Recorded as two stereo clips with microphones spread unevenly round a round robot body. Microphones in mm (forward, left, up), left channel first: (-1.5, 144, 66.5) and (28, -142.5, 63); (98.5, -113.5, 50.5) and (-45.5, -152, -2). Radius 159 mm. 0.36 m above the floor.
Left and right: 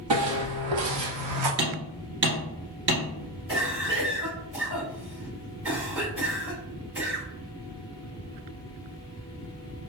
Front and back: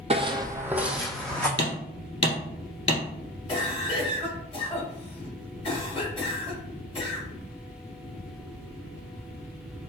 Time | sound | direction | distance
0.1 | footsteps | 105° right | 0.8 m
1.6 | hammering | 35° right | 1.7 m
3.5 | a cough | 50° right | 2.0 m